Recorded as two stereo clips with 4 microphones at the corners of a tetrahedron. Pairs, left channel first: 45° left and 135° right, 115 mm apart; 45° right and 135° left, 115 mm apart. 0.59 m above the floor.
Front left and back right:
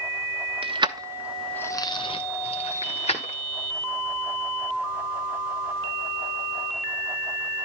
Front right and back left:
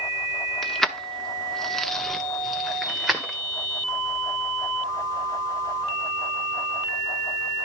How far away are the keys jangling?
About 0.8 m.